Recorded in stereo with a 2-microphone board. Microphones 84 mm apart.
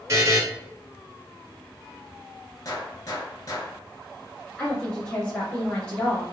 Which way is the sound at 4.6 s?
15° left (ahead or behind).